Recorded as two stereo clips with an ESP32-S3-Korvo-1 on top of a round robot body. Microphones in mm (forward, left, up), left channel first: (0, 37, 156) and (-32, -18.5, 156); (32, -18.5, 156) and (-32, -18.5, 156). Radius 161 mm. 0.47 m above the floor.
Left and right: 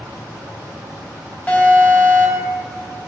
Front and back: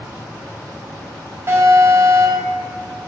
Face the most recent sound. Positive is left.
turn(degrees=125)